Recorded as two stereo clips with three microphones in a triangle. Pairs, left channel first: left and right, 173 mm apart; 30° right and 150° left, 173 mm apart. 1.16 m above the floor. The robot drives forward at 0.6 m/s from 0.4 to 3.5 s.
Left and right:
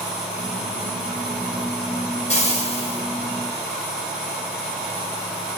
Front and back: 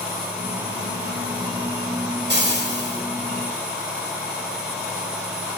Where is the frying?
140° left, 1.5 m; by 3.0 s 150° left, 1.8 m.